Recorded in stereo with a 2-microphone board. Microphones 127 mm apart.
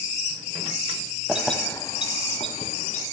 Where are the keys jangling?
10° right (ahead or behind), 0.8 m; by 3.0 s 65° left (ahead or behind), 2.0 m.